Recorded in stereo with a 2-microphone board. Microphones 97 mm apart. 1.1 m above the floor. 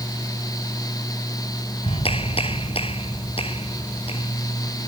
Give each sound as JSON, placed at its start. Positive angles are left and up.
{"t": 1.8, "sound": "a clap", "side_deg": 75}